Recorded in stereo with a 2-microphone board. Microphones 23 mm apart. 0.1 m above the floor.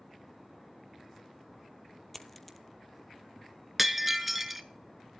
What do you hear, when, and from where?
2.1 s a dropped coin: 5° left (ahead or behind), 0.8 m
3.8 s breaking glass: 10° right (ahead or behind), 0.6 m